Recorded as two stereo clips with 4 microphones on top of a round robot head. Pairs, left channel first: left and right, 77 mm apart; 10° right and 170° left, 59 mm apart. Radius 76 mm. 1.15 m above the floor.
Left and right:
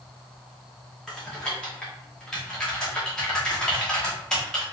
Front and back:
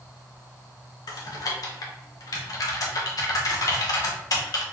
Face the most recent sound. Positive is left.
turn(degrees=5)